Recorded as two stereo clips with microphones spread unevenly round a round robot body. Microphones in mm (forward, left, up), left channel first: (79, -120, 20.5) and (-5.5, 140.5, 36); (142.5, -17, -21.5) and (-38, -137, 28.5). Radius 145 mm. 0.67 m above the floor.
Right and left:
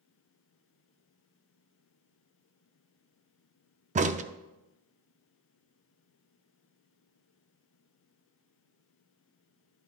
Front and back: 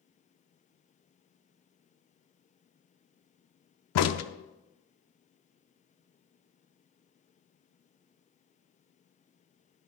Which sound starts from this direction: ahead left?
A crack, at 4.0 s.